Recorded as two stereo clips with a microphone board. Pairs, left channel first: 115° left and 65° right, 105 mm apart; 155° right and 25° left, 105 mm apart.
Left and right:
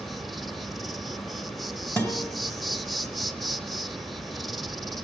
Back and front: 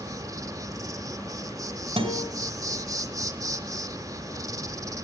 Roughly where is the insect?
Ahead left.